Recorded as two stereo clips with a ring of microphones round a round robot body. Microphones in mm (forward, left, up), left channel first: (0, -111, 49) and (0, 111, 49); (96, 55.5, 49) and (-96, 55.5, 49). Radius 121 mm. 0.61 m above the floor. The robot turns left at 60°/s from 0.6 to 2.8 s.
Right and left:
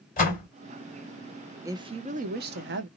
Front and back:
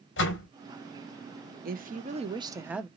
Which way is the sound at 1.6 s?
165° left.